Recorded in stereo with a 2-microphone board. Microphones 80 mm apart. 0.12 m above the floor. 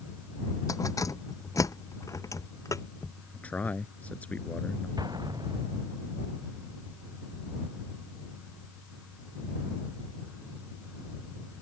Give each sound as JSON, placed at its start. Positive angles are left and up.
{"t": 0.7, "sound": "keys jangling", "side_deg": 50}
{"t": 3.3, "sound": "a man speaking", "side_deg": 20}
{"t": 5.0, "sound": "an explosion", "side_deg": -65}